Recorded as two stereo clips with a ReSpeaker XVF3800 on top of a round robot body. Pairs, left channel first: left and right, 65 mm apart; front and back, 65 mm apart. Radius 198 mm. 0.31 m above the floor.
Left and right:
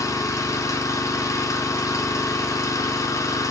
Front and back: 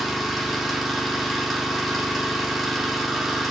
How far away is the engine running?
About 1.1 m.